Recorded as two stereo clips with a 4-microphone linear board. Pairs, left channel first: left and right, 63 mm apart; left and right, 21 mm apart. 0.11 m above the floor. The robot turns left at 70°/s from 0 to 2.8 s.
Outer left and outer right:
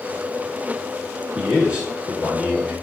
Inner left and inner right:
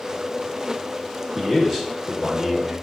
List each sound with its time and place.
1.4 s a man speaking: 15° right (ahead or behind), 1.2 m